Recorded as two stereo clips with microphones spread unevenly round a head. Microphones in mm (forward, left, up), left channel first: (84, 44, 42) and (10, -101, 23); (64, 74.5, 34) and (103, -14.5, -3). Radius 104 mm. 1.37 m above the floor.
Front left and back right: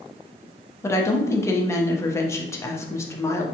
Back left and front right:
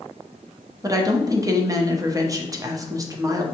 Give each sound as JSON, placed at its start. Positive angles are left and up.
{"t": 0.8, "sound": "a woman speaking", "azimuth_deg": -10, "distance_m": 1.0}